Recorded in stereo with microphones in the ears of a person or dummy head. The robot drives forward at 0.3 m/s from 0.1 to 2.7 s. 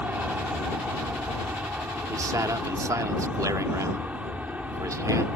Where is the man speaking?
15° right (ahead or behind).